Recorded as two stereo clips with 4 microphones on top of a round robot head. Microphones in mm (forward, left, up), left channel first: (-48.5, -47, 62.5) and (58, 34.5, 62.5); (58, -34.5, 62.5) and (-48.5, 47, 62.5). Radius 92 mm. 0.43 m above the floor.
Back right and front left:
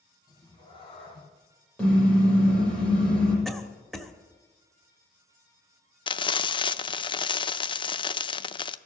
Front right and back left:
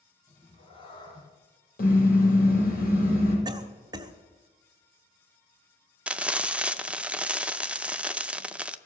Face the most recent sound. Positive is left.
turn(degrees=-140)